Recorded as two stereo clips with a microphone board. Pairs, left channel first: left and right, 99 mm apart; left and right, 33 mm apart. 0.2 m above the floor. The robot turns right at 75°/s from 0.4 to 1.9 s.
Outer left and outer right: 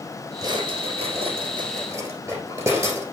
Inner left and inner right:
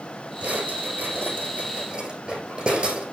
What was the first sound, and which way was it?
A drawer, 40° right (ahead or behind).